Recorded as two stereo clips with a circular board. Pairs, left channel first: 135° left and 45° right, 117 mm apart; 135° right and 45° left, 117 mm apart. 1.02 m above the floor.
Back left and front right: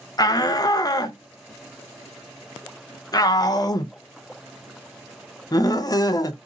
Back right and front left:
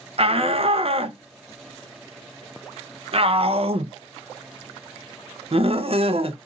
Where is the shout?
80° left, 0.7 m.